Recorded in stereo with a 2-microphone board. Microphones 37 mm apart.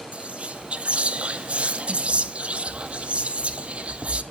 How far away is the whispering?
About 0.6 m.